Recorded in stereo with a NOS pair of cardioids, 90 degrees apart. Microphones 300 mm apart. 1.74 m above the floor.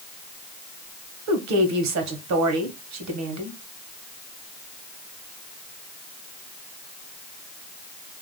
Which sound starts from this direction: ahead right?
A woman speaking, at 1.3 s.